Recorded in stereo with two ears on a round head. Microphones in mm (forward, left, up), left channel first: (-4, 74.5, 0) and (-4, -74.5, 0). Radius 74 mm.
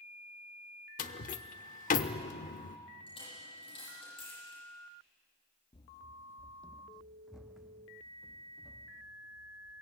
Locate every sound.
1.0 s a door slam: 50° left (ahead or behind), 0.9 m
3.1 s a dropped coin: 35° left (ahead or behind), 9.5 m
5.7 s running footsteps: 30° left (ahead or behind), 0.5 m; by 9.8 s 10° right (ahead or behind), 3 m